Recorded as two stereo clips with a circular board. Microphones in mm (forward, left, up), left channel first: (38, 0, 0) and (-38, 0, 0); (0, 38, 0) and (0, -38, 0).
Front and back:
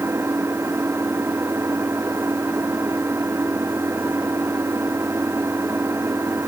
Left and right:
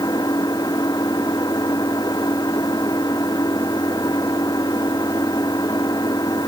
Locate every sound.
0.0 s an engine running: 125° left